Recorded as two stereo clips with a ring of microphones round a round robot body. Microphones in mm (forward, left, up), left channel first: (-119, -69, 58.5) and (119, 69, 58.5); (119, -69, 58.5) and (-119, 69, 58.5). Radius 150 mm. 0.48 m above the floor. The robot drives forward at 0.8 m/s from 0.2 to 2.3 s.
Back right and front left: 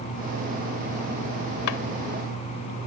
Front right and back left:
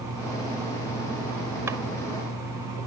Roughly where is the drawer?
Behind right.